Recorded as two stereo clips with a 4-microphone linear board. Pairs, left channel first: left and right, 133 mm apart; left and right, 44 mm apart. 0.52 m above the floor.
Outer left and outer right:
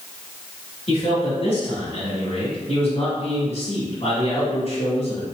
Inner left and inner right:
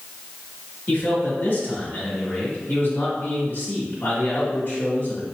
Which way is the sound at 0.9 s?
50° left (ahead or behind).